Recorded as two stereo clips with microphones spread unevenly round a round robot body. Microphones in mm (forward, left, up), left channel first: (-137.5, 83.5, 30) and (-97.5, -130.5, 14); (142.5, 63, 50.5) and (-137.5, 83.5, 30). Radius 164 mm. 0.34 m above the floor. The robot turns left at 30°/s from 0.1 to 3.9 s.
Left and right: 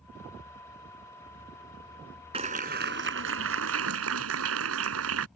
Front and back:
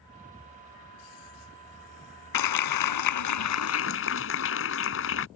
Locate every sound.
2.3 s a clap: 10° right; by 5.3 s 55° right